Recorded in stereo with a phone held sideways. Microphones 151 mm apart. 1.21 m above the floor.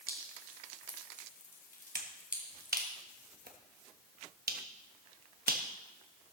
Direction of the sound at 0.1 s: 70° left (ahead or behind).